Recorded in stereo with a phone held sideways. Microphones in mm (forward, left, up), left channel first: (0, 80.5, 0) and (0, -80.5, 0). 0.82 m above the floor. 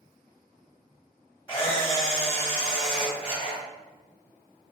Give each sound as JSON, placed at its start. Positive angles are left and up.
{"t": 1.5, "sound": "a camera shutter", "side_deg": 15, "distance_m": 1.1}